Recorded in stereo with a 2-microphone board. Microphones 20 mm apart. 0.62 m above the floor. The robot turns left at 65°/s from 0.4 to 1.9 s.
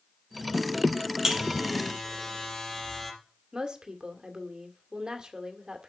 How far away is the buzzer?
About 3.5 m.